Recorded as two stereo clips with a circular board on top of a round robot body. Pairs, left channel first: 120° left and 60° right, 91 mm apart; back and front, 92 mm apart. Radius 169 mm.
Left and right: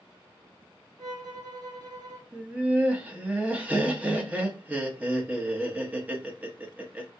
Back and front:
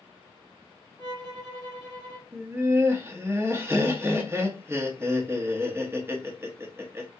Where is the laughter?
5° right, 1.1 m.